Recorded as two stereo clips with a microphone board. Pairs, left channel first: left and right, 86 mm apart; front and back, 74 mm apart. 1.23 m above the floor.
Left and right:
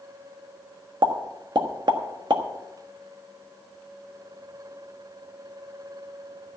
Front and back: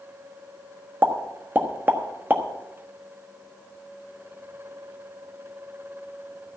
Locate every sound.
1.0 s a pop: 115° right, 1.3 m